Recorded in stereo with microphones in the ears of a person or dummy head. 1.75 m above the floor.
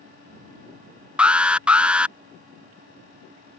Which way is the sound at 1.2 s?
10° right (ahead or behind).